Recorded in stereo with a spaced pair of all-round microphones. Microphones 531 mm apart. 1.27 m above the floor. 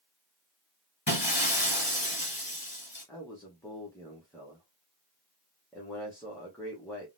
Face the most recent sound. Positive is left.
turn(degrees=5)  # may be behind; listen again after turning